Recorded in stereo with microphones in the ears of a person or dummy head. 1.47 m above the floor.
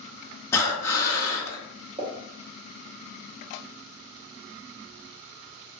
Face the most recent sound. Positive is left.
turn(degrees=-30)  # may be behind; listen again after turning